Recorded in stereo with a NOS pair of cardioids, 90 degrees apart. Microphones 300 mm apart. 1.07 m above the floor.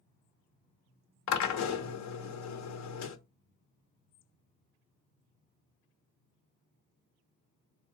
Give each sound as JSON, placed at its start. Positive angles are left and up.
{"t": 1.3, "sound": "a drill", "azimuth_deg": 65, "distance_m": 0.8}